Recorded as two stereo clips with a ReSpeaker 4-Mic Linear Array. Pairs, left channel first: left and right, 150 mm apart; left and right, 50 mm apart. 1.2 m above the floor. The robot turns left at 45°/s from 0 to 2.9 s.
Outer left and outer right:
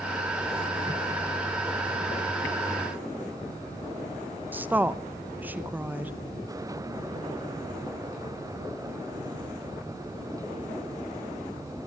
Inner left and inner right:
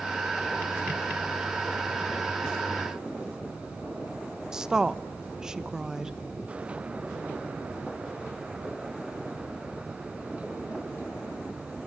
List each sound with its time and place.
4.5 s a woman speaking: 10° right (ahead or behind), 0.9 m